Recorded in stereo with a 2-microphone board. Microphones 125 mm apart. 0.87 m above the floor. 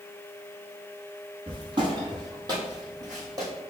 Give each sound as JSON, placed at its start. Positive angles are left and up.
{"t": 1.5, "sound": "footsteps", "side_deg": -45, "distance_m": 1.3}